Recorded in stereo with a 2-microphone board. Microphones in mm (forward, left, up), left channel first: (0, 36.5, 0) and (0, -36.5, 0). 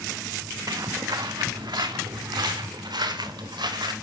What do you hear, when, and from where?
0.7 s footsteps: 55° right (ahead or behind), 0.7 m; by 3.9 s 80° right, 3 m